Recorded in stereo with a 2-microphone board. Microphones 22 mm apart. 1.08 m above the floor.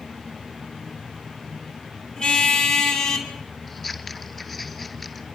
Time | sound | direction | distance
2.2 | a car horn | 40° left (ahead or behind) | 4 m
3.7 | scissors | 5° left (ahead or behind) | 2.5 m